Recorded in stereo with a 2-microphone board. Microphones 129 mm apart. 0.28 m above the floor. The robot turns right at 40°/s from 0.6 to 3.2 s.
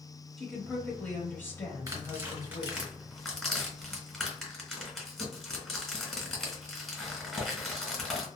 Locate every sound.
0.4 s a woman speaking: centre (ahead or behind), 1.0 m; by 2.9 s 25° left (ahead or behind), 1.0 m
1.9 s tearing paper: 25° right (ahead or behind), 1.1 m; by 8.3 s 5° left (ahead or behind), 1.1 m